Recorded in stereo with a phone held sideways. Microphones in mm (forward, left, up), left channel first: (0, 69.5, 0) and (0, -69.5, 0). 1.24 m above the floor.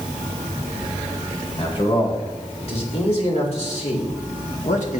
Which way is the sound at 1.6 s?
45° left (ahead or behind).